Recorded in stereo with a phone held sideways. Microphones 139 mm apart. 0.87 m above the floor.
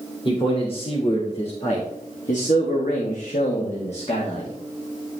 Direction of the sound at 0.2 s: 35° left (ahead or behind).